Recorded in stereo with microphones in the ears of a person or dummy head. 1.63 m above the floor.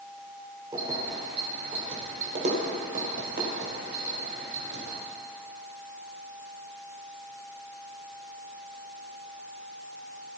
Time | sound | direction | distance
0.7 | keys jangling | 20° right (ahead or behind) | 3.5 m